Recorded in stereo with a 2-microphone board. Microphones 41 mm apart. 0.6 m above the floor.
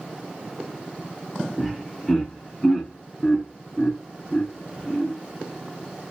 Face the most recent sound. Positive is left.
turn(degrees=5)  # may be behind; listen again after turning